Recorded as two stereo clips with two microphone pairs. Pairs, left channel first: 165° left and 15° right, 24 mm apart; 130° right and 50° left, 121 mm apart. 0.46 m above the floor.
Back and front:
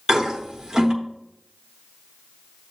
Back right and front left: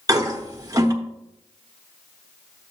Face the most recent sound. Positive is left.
turn(degrees=20)